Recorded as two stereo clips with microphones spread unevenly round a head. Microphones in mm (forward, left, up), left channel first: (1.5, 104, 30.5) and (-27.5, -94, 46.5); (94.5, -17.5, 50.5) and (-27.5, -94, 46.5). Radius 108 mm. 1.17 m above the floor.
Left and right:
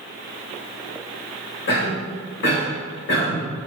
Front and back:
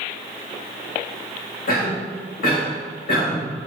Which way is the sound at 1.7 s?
50° left.